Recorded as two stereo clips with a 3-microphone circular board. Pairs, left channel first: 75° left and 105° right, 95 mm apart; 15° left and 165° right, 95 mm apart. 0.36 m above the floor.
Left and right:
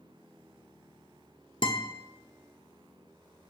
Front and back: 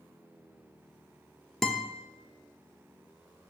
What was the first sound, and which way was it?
A guitar, 105° left.